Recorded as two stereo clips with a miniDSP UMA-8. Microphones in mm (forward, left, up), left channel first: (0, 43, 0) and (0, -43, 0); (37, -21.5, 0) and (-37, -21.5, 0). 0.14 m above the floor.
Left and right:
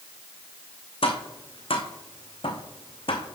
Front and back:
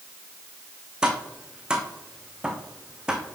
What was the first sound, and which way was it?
Tapping, 100° left.